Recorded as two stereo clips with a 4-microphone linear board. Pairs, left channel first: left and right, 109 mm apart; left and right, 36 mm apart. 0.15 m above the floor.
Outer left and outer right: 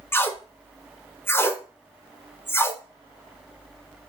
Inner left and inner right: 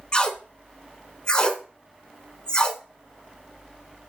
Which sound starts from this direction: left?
Tape being pulled, at 0.1 s.